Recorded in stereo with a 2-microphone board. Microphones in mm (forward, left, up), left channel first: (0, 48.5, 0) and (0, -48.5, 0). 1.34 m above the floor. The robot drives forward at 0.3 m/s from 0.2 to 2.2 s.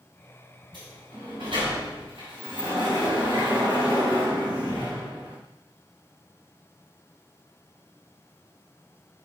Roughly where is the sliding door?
Right.